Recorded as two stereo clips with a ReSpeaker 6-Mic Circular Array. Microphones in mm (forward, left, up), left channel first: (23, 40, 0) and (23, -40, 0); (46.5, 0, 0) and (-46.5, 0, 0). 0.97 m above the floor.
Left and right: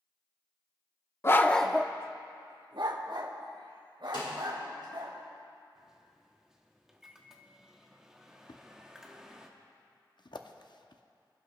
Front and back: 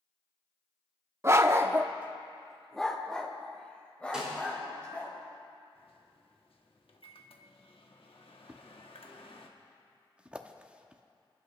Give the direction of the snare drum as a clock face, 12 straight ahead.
9 o'clock.